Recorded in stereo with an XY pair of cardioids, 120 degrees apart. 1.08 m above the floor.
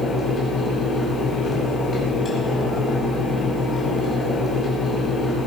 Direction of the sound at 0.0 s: 30° left.